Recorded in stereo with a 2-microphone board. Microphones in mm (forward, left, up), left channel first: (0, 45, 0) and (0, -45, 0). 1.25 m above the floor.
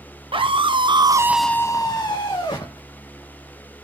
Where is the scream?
70° right (ahead or behind), 1.5 m; by 2.8 s 65° left (ahead or behind), 2.0 m.